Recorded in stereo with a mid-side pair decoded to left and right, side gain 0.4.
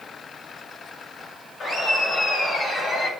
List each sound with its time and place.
1.6 s laughter: 55° left, 6 m; by 3.1 s 65° left, 5 m